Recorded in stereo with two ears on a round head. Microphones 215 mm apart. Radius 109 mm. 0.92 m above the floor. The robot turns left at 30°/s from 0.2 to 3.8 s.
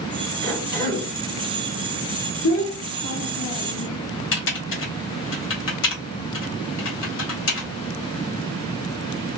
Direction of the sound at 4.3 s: 55° left (ahead or behind).